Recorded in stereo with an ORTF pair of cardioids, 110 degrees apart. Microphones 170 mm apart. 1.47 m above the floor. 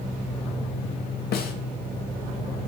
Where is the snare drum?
70° left, 1.2 m.